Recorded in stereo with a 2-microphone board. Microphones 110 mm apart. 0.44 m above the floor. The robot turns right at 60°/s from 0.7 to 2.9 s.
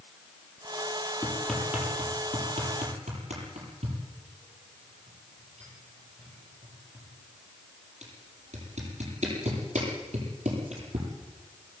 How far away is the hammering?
About 9 m.